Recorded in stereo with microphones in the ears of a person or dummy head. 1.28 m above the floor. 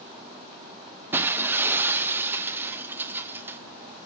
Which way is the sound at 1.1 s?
10° right (ahead or behind).